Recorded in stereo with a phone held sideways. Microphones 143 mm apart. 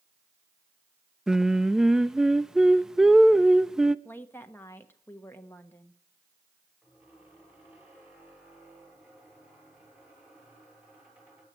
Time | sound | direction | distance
1.3 | singing | 5° right (ahead or behind) | 0.5 m
4.0 | a woman speaking | 15° left (ahead or behind) | 1.2 m
6.8 | a squeak | 15° right (ahead or behind) | 7 m